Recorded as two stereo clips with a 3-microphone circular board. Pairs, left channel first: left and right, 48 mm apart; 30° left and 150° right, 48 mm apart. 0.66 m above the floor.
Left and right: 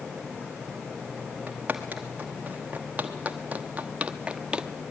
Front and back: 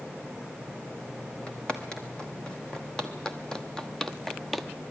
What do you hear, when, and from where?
1.5 s footsteps: 35° right, 2 m; by 4.7 s 50° right, 0.6 m